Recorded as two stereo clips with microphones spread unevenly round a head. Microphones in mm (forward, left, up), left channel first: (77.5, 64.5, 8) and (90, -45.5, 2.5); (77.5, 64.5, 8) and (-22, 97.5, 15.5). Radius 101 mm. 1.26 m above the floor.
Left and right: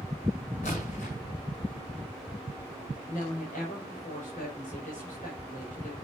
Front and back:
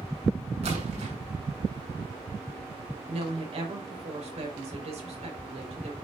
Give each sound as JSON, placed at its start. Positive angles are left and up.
{"t": 0.6, "sound": "a splash", "azimuth_deg": 155, "distance_m": 7.5}
{"t": 3.1, "sound": "a woman speaking", "azimuth_deg": 145, "distance_m": 5.0}